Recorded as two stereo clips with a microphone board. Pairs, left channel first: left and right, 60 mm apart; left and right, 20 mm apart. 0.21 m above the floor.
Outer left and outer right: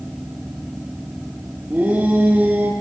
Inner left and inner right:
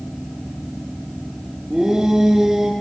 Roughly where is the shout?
Right.